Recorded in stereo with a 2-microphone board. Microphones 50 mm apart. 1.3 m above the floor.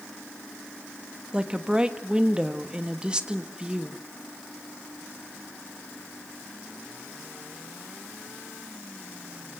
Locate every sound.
1.3 s a woman speaking: 15° right (ahead or behind), 1.5 m